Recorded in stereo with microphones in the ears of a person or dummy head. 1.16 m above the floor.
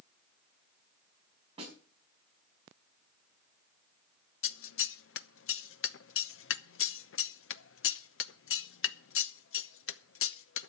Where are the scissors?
60° left (ahead or behind), 0.7 m.